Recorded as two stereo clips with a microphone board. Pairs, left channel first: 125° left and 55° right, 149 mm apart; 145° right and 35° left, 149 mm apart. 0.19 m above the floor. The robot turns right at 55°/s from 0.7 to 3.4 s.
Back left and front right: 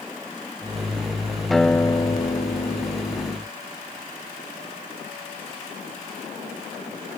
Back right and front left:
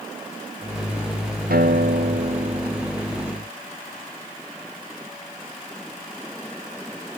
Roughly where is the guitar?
Ahead left.